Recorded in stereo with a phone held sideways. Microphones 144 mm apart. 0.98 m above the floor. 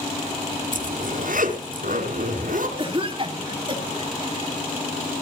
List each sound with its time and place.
0.7 s a zipper: 75° right (ahead or behind), 3 m
2.8 s a cough: 35° right (ahead or behind), 2.5 m